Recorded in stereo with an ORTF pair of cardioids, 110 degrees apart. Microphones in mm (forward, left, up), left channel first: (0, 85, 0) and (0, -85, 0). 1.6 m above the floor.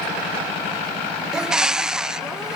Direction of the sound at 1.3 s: 5° right.